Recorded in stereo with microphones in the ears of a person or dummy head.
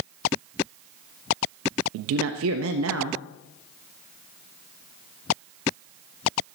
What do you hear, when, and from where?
1.9 s a man speaking: 70° right (ahead or behind), 1.0 m